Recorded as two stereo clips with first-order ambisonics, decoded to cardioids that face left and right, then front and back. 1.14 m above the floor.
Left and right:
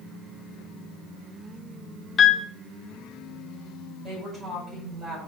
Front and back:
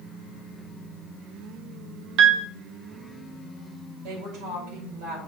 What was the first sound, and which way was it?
A piano, 155° left.